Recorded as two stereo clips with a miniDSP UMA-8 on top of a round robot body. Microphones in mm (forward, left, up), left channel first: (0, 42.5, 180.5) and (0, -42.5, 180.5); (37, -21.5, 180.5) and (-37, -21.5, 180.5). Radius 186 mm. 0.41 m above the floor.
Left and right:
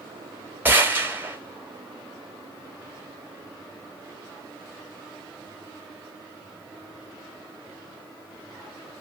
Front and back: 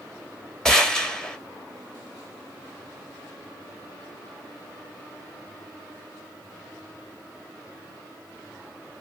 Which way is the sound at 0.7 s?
70° right.